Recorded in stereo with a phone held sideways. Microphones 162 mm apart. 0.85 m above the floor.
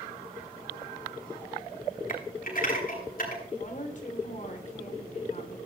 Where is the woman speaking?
50° left (ahead or behind), 3 m.